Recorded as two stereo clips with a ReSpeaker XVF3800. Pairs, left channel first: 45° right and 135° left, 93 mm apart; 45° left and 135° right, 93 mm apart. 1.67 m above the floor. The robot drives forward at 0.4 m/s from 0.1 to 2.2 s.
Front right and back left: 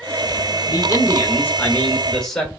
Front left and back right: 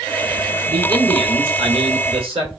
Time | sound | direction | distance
0.7 | a man speaking | 95° right | 0.8 m